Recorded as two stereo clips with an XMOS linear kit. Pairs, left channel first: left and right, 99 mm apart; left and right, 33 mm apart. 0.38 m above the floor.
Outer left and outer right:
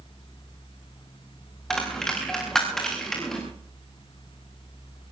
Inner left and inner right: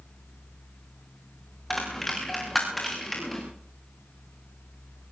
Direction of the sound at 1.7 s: 5° left (ahead or behind).